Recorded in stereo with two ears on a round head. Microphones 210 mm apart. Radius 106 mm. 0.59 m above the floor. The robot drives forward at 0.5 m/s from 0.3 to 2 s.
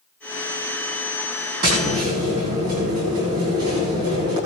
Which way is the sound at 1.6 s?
40° right (ahead or behind).